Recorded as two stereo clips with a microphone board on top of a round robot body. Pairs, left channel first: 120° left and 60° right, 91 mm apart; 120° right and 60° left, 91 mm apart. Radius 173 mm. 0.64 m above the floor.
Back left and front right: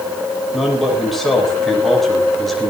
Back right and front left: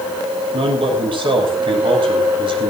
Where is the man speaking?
30° left, 6 m.